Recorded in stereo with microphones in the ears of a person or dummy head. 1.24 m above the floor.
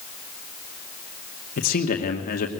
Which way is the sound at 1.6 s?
45° left (ahead or behind).